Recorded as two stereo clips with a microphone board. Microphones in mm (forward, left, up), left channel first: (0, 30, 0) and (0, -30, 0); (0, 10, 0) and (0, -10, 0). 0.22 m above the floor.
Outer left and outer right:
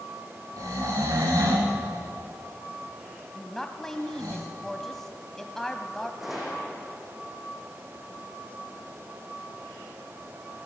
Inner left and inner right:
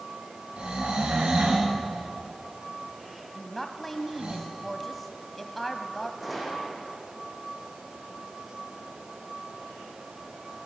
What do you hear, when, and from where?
0.6 s snoring: 90° right, 7 m
3.4 s a woman speaking: 5° left (ahead or behind), 1.4 m
6.2 s a gunshot: 5° right (ahead or behind), 5 m